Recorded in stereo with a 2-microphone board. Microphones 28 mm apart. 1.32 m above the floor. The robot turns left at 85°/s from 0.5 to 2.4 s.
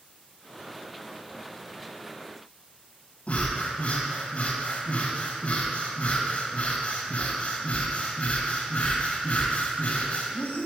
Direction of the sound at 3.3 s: 45° left (ahead or behind).